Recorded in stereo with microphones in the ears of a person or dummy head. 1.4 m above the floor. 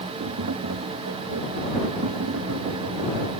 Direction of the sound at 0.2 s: 65° right (ahead or behind).